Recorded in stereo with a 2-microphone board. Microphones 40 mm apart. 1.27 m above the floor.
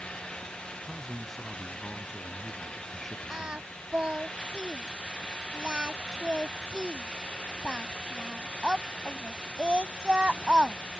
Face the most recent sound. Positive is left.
turn(degrees=-25)  # may be behind; listen again after turning